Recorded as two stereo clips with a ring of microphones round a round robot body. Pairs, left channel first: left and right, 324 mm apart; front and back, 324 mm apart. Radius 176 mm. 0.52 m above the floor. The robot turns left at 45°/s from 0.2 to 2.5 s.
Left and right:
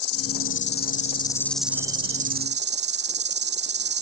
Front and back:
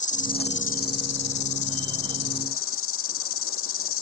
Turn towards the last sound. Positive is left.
turn(degrees=-40)